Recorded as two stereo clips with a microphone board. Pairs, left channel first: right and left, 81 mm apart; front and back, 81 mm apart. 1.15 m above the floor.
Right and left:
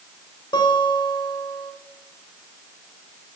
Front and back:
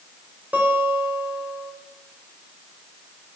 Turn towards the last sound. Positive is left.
turn(degrees=-110)